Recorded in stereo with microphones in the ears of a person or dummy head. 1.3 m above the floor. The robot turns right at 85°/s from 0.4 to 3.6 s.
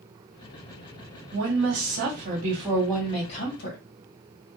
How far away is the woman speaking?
About 1.4 m.